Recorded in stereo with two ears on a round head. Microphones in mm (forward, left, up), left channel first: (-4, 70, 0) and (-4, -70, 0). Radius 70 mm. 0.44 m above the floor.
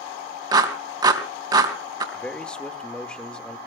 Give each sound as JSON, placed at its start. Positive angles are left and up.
{"t": 0.5, "sound": "a clap", "side_deg": -25, "distance_m": 3.0}
{"t": 2.1, "sound": "a man speaking", "side_deg": 5, "distance_m": 1.3}